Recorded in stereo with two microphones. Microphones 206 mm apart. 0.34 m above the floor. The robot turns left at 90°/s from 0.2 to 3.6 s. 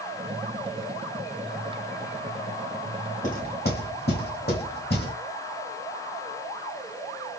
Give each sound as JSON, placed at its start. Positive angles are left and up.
{"t": 3.2, "sound": "knocking", "side_deg": 35, "distance_m": 1.3}